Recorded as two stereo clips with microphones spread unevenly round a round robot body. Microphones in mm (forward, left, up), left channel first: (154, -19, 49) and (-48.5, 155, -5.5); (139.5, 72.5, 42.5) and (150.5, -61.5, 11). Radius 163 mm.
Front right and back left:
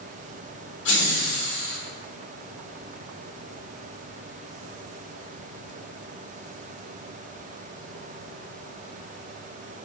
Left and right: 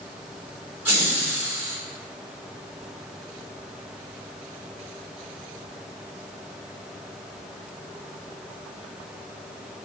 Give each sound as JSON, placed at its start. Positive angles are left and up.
{"t": 0.8, "sound": "laughter", "azimuth_deg": -50, "distance_m": 0.7}